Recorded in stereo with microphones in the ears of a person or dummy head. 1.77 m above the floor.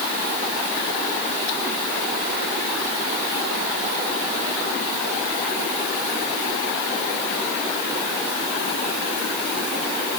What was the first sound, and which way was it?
Only background noise.